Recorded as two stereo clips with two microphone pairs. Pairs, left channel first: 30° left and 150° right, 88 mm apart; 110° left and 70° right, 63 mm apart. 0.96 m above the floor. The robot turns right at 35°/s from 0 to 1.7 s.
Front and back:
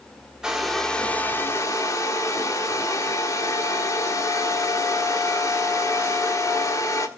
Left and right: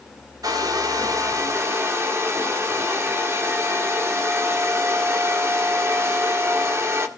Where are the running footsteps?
I don't hear running footsteps.